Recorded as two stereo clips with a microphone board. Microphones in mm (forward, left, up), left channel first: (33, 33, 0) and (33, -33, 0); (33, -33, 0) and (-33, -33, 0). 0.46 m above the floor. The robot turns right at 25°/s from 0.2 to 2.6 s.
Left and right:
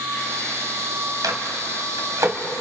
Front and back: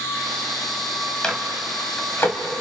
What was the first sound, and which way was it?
A microwave, 80° right.